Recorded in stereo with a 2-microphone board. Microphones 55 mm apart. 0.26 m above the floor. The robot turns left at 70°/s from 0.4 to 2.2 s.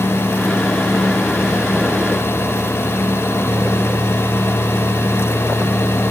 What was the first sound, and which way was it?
Only background noise.